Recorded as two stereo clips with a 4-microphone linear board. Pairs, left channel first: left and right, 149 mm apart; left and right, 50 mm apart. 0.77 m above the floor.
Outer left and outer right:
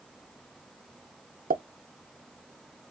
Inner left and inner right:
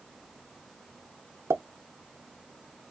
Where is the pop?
65° right (ahead or behind), 0.5 m.